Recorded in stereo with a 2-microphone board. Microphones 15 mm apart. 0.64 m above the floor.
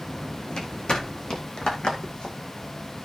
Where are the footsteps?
80° left, 3 m; by 2.4 s 65° left (ahead or behind), 2 m.